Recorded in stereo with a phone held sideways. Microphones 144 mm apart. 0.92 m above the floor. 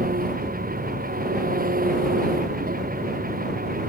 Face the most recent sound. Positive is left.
turn(degrees=-80)